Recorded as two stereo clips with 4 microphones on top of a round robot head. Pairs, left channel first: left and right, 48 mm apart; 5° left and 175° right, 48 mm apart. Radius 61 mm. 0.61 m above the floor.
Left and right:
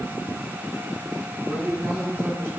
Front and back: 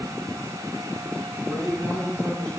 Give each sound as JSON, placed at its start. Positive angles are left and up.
{"t": 1.4, "sound": "a man speaking", "azimuth_deg": -65, "distance_m": 6.0}